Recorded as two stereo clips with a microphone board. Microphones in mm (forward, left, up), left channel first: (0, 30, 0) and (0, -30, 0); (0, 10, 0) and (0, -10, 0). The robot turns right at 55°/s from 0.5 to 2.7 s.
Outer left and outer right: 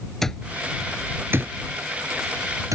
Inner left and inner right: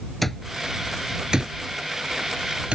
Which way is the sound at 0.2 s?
5° left (ahead or behind).